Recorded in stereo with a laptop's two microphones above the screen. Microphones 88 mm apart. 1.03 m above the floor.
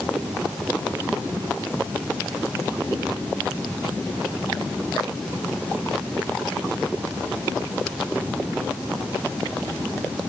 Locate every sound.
Only background noise.